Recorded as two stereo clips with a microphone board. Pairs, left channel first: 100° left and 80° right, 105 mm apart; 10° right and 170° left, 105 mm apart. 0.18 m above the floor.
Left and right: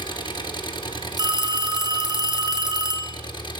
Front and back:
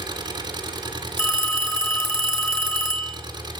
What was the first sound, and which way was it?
An engine running, 130° left.